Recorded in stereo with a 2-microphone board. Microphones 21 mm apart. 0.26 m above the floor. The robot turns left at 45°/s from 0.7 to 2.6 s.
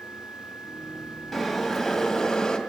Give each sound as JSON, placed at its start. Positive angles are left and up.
{"t": 1.3, "sound": "boiling", "azimuth_deg": -175, "distance_m": 1.7}